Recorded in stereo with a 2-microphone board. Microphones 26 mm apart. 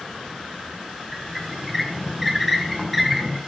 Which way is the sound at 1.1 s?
5° right (ahead or behind).